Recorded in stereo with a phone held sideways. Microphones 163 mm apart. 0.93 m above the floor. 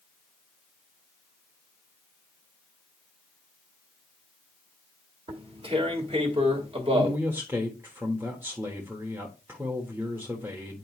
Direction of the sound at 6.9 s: 10° right (ahead or behind).